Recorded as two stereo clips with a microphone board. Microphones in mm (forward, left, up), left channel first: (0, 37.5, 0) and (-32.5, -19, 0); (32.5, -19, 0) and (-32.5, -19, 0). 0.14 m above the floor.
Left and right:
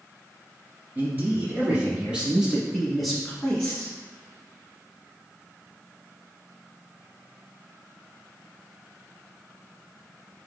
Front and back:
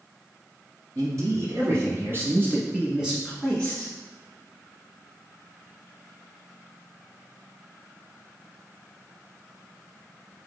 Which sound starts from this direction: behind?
A man speaking, at 0.9 s.